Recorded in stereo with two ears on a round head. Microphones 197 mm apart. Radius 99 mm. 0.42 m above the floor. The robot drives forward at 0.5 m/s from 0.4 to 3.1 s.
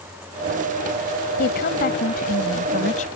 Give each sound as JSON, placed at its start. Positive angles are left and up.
{"t": 1.4, "sound": "a woman speaking", "side_deg": 50}